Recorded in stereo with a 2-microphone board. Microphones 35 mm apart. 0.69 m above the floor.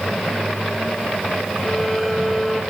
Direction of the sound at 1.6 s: 10° left (ahead or behind).